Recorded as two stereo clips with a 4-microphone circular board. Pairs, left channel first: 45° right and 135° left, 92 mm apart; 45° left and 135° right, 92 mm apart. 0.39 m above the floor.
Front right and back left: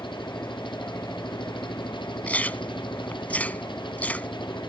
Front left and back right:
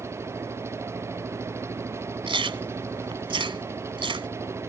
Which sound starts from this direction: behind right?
Chewing, at 2.3 s.